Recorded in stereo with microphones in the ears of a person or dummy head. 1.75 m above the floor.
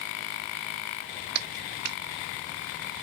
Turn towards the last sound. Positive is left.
turn(degrees=-55)  # may be behind; listen again after turning